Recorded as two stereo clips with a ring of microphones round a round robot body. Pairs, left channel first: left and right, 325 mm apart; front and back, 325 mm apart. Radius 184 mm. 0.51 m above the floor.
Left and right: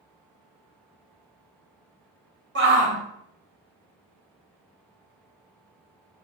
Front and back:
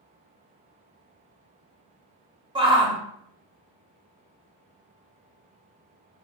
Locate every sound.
2.5 s a shout: 115° right, 1.4 m